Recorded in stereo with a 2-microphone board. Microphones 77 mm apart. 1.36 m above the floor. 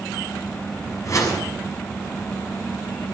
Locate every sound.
1.1 s a whoosh: 45° left (ahead or behind), 6.5 m